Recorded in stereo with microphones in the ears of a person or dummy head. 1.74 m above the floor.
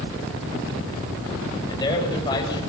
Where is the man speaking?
25° left (ahead or behind), 8.5 m.